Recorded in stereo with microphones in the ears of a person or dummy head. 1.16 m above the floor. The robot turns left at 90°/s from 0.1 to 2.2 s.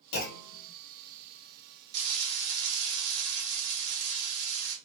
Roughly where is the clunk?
Ahead left.